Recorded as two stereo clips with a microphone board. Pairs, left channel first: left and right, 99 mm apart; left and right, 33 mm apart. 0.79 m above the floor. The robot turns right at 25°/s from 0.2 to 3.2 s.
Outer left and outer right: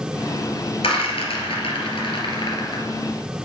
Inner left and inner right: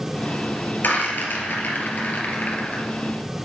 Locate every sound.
0.8 s a rattle: 70° left (ahead or behind), 2 m; by 2.8 s 45° left (ahead or behind), 2 m